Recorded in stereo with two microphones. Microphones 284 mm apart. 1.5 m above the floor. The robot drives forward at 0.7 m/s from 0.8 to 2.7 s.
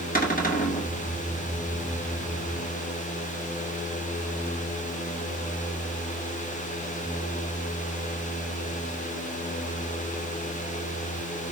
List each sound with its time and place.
0.1 s a cupboard door: 30° left (ahead or behind), 1.9 m